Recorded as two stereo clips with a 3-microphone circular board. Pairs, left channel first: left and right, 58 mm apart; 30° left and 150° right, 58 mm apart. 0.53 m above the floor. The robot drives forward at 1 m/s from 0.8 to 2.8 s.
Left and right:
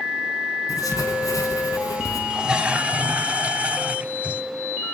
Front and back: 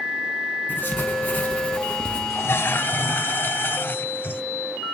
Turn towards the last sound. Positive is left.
turn(degrees=-25)